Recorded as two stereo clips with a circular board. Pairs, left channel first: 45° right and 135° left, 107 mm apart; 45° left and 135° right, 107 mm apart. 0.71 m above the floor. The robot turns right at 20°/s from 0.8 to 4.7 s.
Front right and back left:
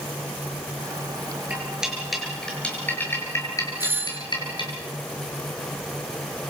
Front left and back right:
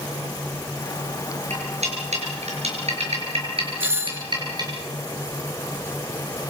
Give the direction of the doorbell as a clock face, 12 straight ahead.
6 o'clock.